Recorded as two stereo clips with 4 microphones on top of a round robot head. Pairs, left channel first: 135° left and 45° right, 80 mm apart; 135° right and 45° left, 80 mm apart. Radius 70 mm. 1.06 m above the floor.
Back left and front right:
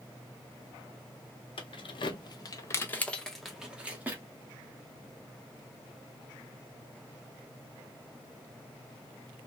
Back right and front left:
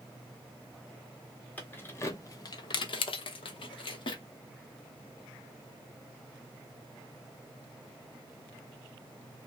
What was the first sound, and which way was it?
Keys jangling, 150° left.